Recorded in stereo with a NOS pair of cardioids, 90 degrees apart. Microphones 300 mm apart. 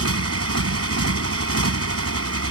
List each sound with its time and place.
0.0 s a motorcycle: 55° right